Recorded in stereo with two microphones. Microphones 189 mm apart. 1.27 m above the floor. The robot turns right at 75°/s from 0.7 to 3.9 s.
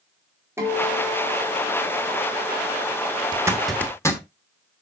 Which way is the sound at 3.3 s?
25° right (ahead or behind).